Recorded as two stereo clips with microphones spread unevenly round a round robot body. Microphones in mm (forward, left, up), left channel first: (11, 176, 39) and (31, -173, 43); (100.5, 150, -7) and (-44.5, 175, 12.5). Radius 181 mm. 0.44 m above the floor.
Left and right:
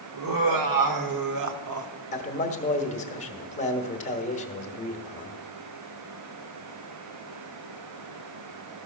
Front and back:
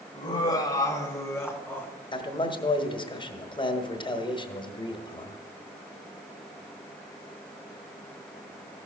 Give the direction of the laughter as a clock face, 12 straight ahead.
2 o'clock.